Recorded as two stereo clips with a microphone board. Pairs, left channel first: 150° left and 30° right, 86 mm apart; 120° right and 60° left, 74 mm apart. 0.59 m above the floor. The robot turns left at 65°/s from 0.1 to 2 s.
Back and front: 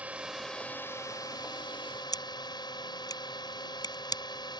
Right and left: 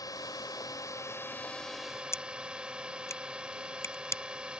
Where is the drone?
100° right; by 4.6 s 135° left.